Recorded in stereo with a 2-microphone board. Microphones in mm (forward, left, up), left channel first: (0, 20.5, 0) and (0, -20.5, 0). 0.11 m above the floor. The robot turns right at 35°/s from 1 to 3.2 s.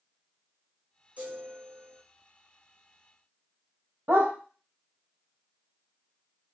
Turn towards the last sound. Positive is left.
turn(degrees=-70)  # may be behind; listen again after turning